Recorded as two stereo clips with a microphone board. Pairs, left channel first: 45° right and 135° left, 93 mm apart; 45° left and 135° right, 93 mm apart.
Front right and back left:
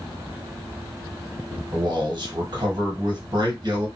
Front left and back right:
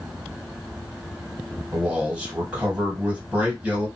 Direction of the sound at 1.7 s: 155° left.